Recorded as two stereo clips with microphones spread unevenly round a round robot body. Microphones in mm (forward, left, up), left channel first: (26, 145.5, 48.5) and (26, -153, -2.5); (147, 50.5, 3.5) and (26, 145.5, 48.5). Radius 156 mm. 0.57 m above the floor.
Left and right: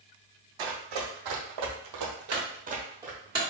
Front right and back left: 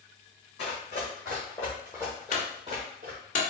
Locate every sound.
0.6 s running footsteps: 95° right, 2 m; by 3.2 s straight behind, 1.2 m
2.3 s a clunk: 20° right, 2.5 m